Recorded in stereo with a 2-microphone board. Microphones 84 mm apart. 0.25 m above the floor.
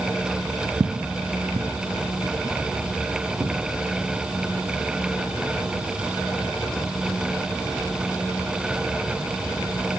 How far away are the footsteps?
About 0.6 m.